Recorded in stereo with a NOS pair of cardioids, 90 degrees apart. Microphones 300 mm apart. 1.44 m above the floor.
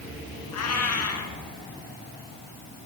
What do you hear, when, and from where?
0.5 s a cat meowing: 65° left, 6 m